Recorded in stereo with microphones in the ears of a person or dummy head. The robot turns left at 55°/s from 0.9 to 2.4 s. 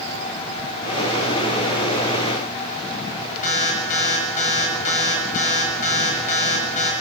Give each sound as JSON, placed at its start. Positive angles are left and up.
{"t": 3.4, "sound": "an alarm", "side_deg": 40, "distance_m": 6.5}